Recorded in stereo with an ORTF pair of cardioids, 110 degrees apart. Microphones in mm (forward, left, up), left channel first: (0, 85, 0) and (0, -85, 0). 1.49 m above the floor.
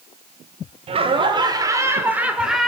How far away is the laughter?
About 4.5 m.